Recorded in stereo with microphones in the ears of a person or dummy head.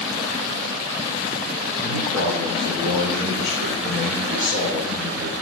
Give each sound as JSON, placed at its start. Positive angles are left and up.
{"t": 1.8, "sound": "a man speaking", "side_deg": -70, "distance_m": 3.0}